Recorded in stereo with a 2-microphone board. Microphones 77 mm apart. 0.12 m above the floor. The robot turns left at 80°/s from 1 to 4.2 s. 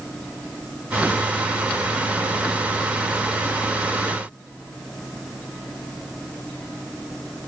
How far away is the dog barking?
I don't hear a dog barking.